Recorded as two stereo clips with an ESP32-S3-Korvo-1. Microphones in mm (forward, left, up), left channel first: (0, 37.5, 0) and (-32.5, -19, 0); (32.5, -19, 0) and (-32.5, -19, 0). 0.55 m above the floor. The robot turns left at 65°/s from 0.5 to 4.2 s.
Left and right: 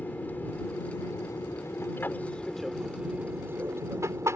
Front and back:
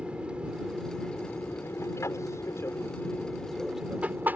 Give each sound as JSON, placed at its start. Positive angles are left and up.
{"t": 0.0, "sound": "an aircraft", "azimuth_deg": 115}